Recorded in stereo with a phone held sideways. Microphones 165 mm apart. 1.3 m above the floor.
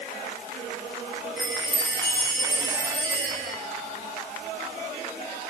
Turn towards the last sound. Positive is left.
turn(degrees=70)  # may be behind; listen again after turning